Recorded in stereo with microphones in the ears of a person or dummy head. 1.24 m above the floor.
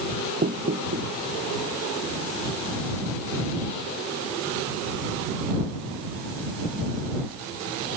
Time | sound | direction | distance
0.4 | knocking | 45° right (ahead or behind) | ?